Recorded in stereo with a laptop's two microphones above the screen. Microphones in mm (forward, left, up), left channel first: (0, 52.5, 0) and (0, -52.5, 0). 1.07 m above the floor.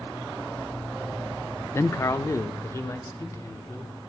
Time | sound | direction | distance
1.7 | a man speaking | 25° left (ahead or behind) | 0.6 m